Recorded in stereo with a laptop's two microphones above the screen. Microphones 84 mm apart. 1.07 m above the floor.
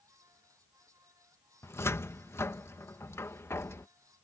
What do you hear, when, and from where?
0.0 s a fan: 40° right (ahead or behind)
1.6 s a cupboard door: 30° left (ahead or behind)